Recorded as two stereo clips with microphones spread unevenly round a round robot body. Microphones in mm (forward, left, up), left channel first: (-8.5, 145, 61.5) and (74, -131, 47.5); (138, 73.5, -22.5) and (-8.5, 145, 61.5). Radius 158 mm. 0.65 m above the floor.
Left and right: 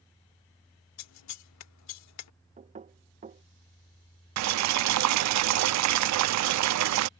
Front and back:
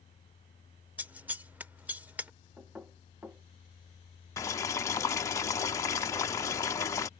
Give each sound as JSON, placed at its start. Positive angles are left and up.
{"t": 1.0, "sound": "scissors", "azimuth_deg": 75}
{"t": 2.6, "sound": "knocking", "azimuth_deg": -65}
{"t": 4.4, "sound": "boiling", "azimuth_deg": -75}